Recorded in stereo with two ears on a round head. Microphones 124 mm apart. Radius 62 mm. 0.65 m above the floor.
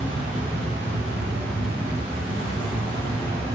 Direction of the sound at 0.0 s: 40° right (ahead or behind).